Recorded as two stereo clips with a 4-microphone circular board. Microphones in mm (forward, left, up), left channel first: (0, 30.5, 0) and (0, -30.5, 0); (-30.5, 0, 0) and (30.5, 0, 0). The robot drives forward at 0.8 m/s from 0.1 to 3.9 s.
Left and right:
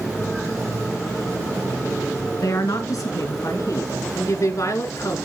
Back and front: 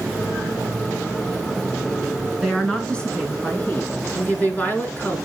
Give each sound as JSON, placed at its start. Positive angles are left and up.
{"t": 2.4, "sound": "a woman speaking", "azimuth_deg": 95, "distance_m": 3.0}